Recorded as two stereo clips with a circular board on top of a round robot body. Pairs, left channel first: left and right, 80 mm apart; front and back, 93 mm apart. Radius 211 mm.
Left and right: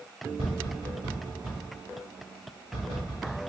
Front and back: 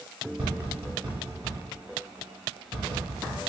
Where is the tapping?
110° right, 0.8 m.